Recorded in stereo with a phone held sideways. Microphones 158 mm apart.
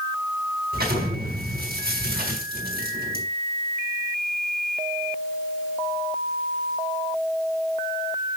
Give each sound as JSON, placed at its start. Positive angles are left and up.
{"t": 0.7, "sound": "an explosion", "side_deg": -75, "distance_m": 4.5}